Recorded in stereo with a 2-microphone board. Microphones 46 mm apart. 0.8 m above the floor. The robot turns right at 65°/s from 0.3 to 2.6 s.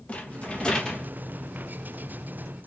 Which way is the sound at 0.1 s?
120° left.